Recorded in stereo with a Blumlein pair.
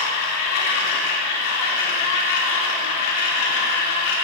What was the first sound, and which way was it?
A machine running, 50° left.